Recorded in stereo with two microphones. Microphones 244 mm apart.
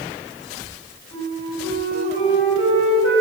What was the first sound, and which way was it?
A flute, 55° left (ahead or behind).